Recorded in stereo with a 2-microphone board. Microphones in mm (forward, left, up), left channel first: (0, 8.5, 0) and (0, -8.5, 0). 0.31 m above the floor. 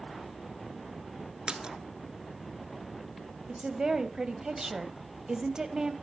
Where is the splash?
55° right (ahead or behind), 0.9 m.